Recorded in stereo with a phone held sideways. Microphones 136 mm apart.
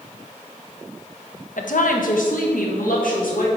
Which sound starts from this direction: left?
A woman speaking, at 1.6 s.